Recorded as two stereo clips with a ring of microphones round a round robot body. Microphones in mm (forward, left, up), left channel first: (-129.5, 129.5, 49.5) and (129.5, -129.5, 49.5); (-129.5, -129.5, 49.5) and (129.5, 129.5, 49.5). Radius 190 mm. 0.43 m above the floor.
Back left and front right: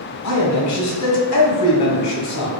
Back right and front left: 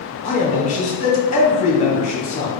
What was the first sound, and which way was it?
A man speaking, 160° left.